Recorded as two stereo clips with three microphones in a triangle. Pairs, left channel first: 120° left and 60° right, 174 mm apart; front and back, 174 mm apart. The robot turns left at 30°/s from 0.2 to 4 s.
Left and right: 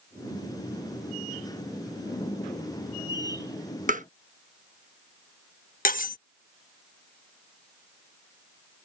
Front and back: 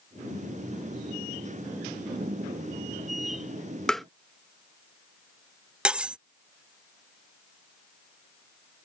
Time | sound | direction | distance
3.9 | tapping | 85° right | ?
5.8 | cutlery clinking | 100° left | ?